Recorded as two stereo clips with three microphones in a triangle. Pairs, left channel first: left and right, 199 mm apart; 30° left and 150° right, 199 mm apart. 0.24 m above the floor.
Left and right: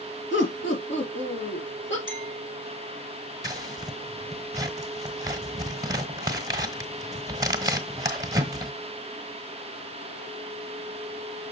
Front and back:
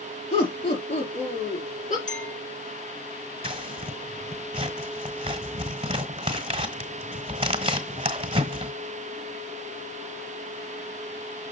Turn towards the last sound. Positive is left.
turn(degrees=-140)